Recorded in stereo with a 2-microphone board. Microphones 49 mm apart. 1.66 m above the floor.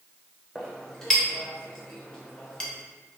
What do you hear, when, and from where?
0.6 s a clink: 15° left (ahead or behind), 0.8 m